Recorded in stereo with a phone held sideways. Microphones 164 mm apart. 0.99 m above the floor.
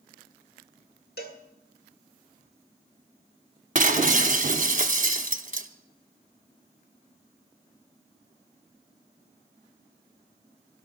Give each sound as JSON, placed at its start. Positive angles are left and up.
{"t": 1.2, "sound": "a cowbell", "side_deg": 75, "distance_m": 1.4}
{"t": 3.8, "sound": "breaking glass", "side_deg": -50, "distance_m": 0.7}